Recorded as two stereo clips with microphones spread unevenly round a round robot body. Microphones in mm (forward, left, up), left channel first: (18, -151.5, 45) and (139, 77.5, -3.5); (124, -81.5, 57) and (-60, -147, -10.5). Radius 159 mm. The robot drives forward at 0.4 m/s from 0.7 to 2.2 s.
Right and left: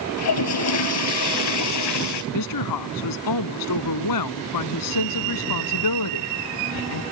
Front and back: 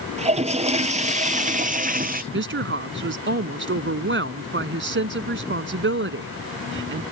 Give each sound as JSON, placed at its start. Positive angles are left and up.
{"t": 0.2, "sound": "a toilet flushing", "azimuth_deg": -100}
{"t": 2.3, "sound": "a woman speaking", "azimuth_deg": -140}